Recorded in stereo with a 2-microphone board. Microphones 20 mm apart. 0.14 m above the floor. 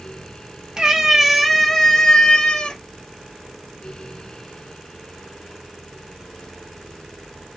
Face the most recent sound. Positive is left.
turn(degrees=45)  # may be behind; listen again after turning